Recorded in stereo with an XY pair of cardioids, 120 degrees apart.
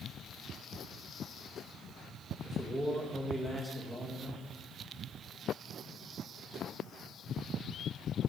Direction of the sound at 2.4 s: 10° right.